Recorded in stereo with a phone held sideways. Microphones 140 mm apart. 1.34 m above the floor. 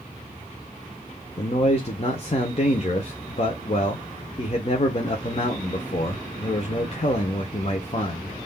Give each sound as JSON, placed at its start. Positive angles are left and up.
{"t": 1.4, "sound": "a man speaking", "side_deg": 45, "distance_m": 0.8}